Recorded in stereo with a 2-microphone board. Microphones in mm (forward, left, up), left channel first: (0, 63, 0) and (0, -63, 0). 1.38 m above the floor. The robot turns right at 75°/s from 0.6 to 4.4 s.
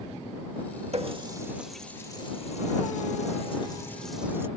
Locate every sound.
0.9 s a running tap: 55° right (ahead or behind); by 4.5 s 20° right (ahead or behind)